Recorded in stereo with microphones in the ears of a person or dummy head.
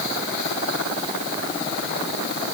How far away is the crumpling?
No crumpling in this recording.